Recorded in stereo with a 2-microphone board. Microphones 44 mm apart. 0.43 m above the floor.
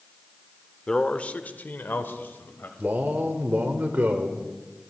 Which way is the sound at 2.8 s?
45° right (ahead or behind).